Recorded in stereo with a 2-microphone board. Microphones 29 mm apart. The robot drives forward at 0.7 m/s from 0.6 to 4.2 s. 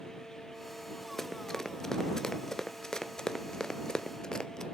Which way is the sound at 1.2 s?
10° left (ahead or behind).